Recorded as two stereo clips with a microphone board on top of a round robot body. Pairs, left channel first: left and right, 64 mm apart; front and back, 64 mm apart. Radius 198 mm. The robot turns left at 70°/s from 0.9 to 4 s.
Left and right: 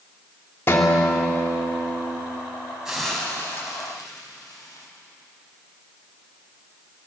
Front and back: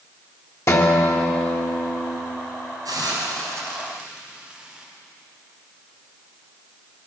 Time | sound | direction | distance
0.7 | a guitar | 35° left | 3 m
2.9 | a hiss | 170° right | 4.5 m